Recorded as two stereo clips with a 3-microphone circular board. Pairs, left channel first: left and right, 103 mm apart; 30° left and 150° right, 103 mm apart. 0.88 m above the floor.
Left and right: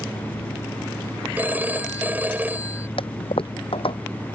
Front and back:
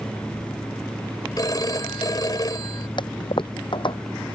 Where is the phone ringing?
20° right.